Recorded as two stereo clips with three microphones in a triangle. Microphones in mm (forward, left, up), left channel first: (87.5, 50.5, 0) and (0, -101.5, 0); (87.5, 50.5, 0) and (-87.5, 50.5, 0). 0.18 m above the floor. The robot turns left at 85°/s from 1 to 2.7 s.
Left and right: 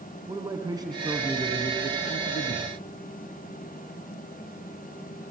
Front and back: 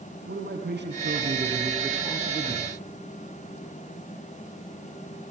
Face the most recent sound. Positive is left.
turn(degrees=25)